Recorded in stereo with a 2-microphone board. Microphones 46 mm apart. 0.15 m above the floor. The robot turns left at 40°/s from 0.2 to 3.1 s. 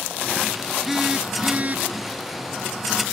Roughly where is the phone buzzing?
Ahead.